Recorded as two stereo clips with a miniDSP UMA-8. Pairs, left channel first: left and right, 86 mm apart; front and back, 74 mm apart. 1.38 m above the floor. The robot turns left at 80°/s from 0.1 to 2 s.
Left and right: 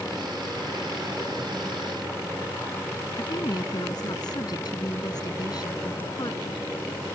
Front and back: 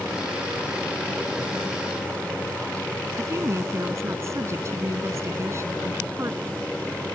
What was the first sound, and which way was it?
A woman speaking, 130° left.